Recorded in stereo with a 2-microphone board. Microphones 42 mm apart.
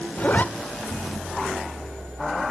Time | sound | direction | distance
0.2 | a zipper | 40° left (ahead or behind) | 1.2 m